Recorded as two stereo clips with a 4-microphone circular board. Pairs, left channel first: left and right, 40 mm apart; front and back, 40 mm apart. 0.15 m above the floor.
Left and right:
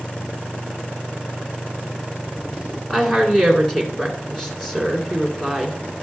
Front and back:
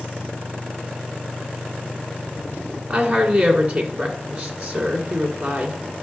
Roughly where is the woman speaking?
Behind.